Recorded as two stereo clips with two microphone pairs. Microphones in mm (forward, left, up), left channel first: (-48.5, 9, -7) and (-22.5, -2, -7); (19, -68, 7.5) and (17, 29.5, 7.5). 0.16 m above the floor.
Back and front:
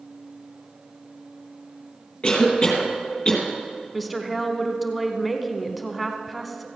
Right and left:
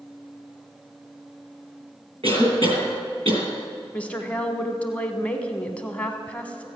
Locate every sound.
2.2 s a cough: 105° left, 4 m
3.9 s a woman speaking: 125° right, 1.0 m